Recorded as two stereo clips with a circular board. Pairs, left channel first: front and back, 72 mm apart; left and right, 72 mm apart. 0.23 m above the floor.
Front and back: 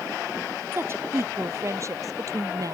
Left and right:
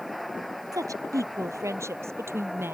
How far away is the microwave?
No microwave in this recording.